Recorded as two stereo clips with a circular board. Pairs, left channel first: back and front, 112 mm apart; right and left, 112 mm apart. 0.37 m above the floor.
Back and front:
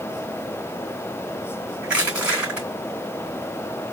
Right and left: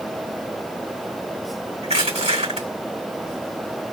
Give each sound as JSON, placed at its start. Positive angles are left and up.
{"t": 1.8, "sound": "crushing", "azimuth_deg": 80, "distance_m": 3.5}